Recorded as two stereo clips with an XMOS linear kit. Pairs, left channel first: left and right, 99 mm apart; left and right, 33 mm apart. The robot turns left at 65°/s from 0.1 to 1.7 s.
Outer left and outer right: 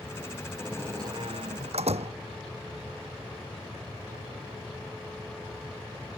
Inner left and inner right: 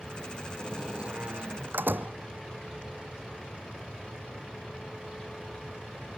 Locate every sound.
0.6 s a door slam: 10° right; by 2.1 s 85° right